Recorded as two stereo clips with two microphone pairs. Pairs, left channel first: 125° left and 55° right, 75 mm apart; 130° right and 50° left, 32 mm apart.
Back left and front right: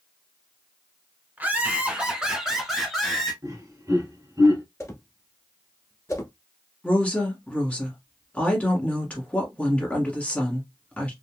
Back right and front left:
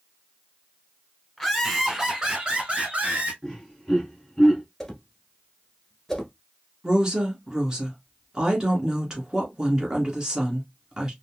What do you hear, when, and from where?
1.4 s laughter: 65° right, 1.1 m; by 3.3 s 45° left, 1.4 m
3.4 s laughter: 40° right, 2 m
4.8 s a whoosh: 150° left, 1.0 m
6.8 s a woman speaking: 80° left, 1.2 m